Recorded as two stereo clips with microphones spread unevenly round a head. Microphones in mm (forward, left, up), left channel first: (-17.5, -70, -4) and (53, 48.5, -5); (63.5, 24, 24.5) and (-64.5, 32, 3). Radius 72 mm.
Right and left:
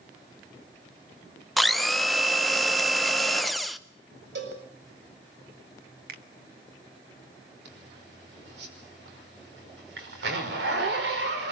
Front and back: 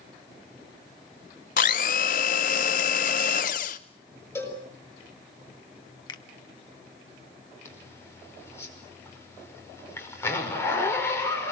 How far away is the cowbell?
About 7.5 m.